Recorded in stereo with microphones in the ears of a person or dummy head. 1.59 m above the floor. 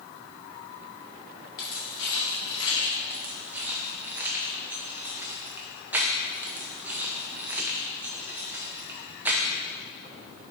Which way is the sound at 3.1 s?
10° right (ahead or behind).